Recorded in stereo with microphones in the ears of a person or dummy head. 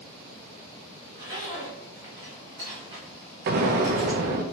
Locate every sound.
1.1 s a zipper: 15° right (ahead or behind), 1.0 m
3.5 s an explosion: 50° right (ahead or behind), 0.6 m